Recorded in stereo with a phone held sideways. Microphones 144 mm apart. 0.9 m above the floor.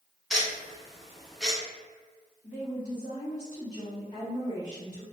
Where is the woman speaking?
60° left (ahead or behind), 1.8 m.